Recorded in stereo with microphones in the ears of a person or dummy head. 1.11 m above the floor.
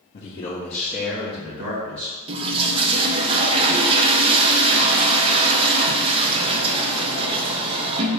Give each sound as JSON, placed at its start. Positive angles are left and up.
{"t": 0.1, "sound": "a man speaking", "side_deg": 50, "distance_m": 1.2}
{"t": 2.3, "sound": "a toilet flushing", "side_deg": -25, "distance_m": 0.6}